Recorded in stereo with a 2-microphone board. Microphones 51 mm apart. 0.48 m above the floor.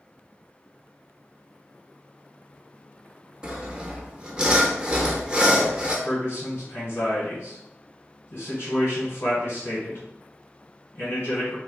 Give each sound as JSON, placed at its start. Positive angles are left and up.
{"t": 3.4, "sound": "sawing", "side_deg": -20, "distance_m": 0.6}
{"t": 6.0, "sound": "a man speaking", "side_deg": 55, "distance_m": 1.6}